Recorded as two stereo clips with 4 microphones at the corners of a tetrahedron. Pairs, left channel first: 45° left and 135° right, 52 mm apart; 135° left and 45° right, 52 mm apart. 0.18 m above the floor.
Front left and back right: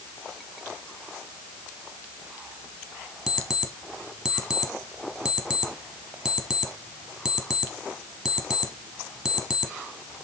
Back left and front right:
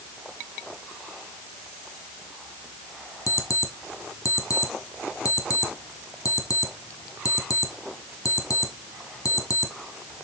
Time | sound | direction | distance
3.3 | an alarm clock | 140° left | 1.8 m